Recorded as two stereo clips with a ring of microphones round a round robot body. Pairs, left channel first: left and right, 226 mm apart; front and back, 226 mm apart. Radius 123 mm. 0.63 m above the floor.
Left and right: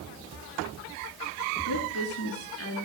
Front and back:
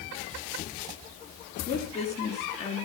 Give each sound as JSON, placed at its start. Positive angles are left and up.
{"t": 1.7, "sound": "a woman speaking", "azimuth_deg": 65, "distance_m": 6.5}